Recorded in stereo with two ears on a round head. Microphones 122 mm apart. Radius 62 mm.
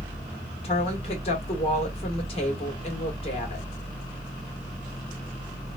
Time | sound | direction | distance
0.6 | a woman speaking | 45° left (ahead or behind) | 1.8 m